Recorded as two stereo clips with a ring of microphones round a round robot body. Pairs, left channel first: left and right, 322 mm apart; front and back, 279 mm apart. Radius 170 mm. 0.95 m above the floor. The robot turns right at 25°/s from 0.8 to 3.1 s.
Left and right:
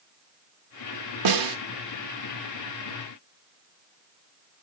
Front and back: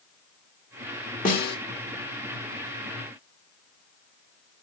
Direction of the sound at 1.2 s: 65° right.